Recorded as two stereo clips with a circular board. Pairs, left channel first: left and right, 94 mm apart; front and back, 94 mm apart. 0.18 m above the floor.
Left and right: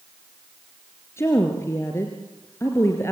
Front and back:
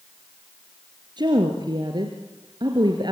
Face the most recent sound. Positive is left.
turn(degrees=150)